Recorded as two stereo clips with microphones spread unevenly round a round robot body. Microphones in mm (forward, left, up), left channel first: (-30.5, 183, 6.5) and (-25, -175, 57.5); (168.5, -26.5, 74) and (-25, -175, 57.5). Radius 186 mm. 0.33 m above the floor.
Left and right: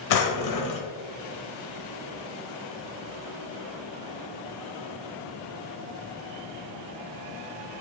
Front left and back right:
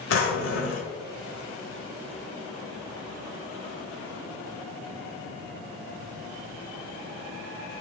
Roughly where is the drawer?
Left.